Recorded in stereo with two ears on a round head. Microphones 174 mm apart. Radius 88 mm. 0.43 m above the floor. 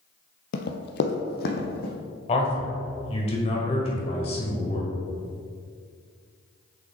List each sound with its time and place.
0.5 s running footsteps: 60° left (ahead or behind), 0.7 m; by 1.9 s 50° left (ahead or behind), 1.7 m
2.3 s a man speaking: 30° left (ahead or behind), 1.6 m